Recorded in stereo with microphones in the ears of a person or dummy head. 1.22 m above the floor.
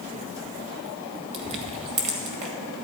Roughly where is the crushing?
Right.